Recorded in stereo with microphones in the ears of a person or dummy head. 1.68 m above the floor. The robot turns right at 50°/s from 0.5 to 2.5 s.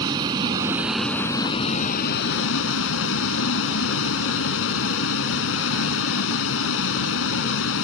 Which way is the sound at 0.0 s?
25° right.